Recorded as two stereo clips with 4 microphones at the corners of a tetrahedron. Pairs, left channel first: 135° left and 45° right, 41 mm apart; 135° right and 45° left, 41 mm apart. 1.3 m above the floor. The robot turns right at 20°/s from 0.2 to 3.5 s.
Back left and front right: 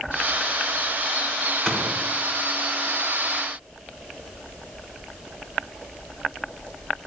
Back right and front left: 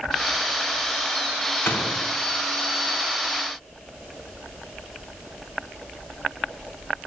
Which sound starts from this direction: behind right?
A gunshot, at 1.6 s.